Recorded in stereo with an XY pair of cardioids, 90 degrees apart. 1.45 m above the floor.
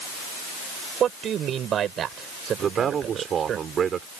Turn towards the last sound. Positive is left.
turn(degrees=-60)